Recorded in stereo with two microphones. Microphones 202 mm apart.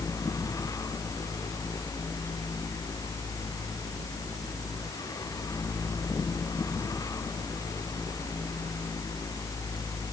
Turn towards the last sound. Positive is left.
No sound to turn to.